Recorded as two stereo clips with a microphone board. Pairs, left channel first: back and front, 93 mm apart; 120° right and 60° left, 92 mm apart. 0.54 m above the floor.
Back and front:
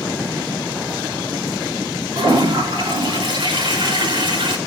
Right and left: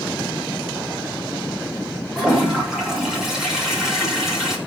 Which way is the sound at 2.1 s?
25° right.